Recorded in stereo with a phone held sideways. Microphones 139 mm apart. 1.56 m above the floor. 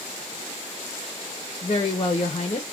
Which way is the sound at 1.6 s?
45° left (ahead or behind).